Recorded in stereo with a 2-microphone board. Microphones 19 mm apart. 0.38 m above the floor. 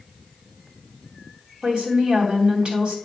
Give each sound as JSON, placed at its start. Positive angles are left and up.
{"t": 1.6, "sound": "a woman speaking", "side_deg": -50, "distance_m": 3.0}